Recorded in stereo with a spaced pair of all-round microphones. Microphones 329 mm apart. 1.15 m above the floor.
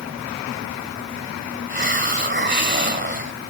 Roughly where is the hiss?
Right.